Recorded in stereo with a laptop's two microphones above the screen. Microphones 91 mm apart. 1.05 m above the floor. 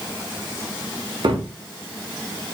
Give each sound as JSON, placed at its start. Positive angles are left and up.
{"t": 1.2, "sound": "a cupboard door", "side_deg": -65, "distance_m": 1.1}